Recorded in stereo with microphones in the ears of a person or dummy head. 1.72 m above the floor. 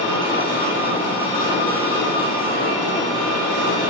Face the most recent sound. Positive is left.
turn(degrees=25)  # may be behind; listen again after turning